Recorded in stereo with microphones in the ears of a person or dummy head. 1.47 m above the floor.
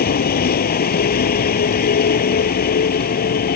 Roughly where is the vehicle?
Left.